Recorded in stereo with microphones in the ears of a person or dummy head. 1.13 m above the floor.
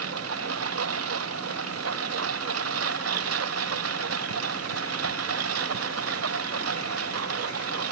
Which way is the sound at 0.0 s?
80° right.